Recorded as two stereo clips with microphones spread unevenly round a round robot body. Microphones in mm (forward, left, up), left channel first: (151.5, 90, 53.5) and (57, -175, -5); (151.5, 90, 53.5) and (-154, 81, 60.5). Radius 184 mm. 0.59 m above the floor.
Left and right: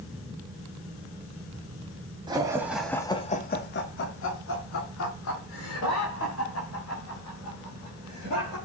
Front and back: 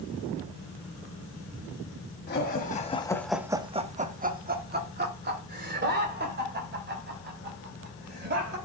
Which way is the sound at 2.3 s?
50° right.